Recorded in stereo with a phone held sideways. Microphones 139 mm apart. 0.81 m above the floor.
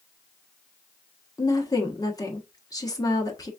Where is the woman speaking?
25° left (ahead or behind), 1.1 m.